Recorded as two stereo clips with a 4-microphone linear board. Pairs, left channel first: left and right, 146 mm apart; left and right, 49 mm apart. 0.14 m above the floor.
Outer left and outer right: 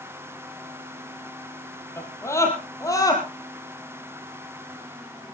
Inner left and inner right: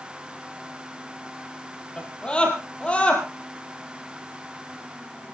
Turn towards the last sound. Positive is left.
turn(degrees=25)  # may be behind; listen again after turning